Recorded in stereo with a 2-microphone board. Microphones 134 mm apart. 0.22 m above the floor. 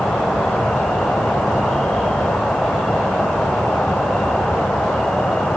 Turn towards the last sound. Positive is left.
turn(degrees=5)  # may be behind; listen again after turning